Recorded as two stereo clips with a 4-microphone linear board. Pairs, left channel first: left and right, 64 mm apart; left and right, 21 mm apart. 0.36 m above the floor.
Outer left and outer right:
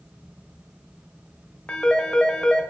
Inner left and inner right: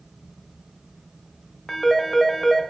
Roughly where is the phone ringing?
Centre.